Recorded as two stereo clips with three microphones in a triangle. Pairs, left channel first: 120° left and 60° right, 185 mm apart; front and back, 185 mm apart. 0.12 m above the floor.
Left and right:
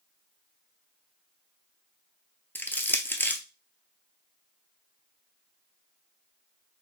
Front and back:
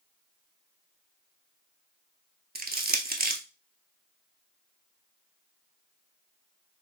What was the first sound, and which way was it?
Crushing, 160° right.